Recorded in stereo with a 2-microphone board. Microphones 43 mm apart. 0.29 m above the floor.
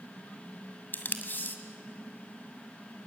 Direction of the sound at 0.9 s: 45° left (ahead or behind).